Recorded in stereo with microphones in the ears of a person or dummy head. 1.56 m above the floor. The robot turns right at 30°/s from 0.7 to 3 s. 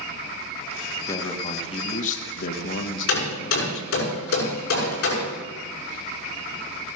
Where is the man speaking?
15° left, 1.8 m; by 3.9 s 75° left, 1.8 m.